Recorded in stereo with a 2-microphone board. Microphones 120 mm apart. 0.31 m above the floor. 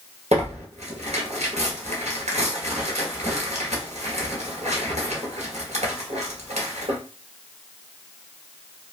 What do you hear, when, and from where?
0.3 s tearing paper: 65° right (ahead or behind), 1.6 m